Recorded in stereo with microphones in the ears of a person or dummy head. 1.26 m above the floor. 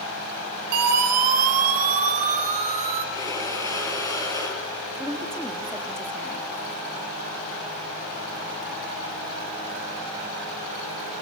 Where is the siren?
50° right (ahead or behind), 5.5 m; by 3.0 s 35° right (ahead or behind), 6.5 m.